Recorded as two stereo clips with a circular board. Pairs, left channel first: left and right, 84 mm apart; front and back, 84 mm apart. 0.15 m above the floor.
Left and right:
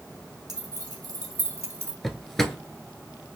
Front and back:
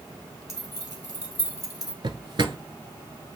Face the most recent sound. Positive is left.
turn(degrees=175)